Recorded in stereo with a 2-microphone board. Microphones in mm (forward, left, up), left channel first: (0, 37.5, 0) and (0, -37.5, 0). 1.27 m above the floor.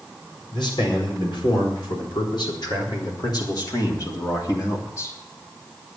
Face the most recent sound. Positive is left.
turn(degrees=35)  # may be behind; listen again after turning